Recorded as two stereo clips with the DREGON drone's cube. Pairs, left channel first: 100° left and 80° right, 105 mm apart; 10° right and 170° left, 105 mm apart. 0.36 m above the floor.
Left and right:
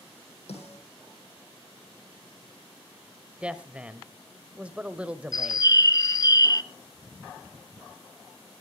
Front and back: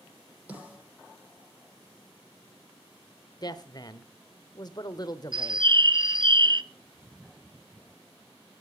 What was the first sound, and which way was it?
A snare drum, 90° left.